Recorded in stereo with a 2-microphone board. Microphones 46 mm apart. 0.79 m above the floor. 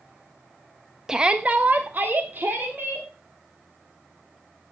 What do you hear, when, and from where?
1.1 s a shout: 10° right (ahead or behind), 0.8 m; by 3.1 s 50° right (ahead or behind), 3 m